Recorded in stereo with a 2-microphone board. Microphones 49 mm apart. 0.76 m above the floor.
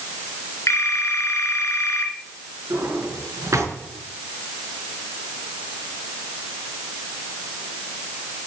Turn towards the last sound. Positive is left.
turn(degrees=-90)